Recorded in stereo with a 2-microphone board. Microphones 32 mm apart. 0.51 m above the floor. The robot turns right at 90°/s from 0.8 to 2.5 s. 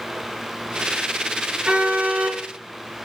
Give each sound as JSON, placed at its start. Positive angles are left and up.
{"t": 1.6, "sound": "a car horn", "azimuth_deg": -145, "distance_m": 3.5}